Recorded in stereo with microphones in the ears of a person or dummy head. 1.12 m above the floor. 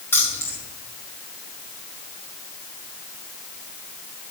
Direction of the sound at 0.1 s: 10° left (ahead or behind).